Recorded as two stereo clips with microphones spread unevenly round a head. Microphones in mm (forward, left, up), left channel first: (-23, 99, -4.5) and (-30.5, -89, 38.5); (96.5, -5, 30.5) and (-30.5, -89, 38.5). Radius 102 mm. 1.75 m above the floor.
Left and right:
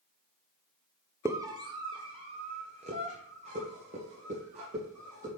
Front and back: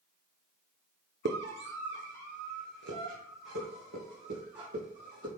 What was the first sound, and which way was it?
A scream, 170° right.